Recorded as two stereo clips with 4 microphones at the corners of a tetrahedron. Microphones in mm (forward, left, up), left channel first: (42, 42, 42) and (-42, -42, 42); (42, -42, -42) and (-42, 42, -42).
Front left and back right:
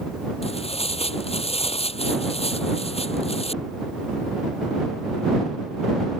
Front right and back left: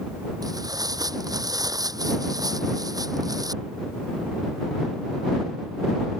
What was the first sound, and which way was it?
Tearing paper, 75° left.